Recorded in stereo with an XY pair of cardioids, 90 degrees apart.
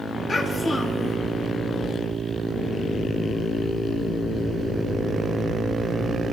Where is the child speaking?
40° left, 5.5 m.